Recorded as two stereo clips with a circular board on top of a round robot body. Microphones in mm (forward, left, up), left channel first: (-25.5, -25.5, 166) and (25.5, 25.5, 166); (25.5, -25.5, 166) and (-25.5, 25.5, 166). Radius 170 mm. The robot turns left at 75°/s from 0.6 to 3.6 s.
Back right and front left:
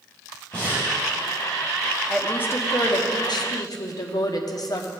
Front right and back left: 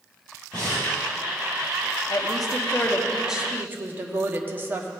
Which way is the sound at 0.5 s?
65° right.